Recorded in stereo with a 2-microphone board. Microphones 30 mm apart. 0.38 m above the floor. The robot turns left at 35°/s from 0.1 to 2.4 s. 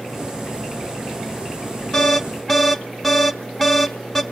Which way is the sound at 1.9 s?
20° left (ahead or behind).